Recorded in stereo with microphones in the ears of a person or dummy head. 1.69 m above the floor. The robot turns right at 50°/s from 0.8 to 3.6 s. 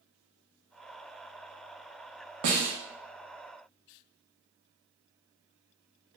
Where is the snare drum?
55° right (ahead or behind), 0.7 m; by 2.7 s 50° right (ahead or behind), 0.7 m.